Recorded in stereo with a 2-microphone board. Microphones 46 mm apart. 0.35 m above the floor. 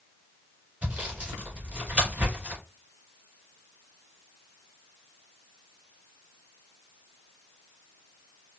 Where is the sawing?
35° right (ahead or behind), 2.5 m.